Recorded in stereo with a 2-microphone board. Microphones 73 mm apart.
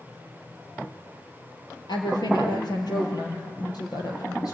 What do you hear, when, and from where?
1.9 s a woman speaking: 70° left (ahead or behind), 4 m; by 4.5 s 60° left (ahead or behind), 5.5 m